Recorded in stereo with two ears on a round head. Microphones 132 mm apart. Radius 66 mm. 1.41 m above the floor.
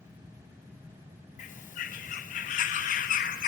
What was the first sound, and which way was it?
A bird, 55° left (ahead or behind).